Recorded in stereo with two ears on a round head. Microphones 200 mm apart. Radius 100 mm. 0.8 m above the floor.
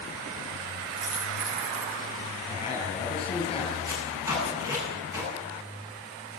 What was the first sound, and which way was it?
A dropped coin, 80° right.